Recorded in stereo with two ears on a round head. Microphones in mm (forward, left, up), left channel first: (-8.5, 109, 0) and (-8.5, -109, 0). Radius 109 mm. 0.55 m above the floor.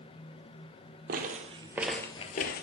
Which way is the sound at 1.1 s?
40° right (ahead or behind).